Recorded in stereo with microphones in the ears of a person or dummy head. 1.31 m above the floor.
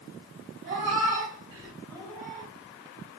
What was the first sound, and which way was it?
A cat meowing, 35° right (ahead or behind).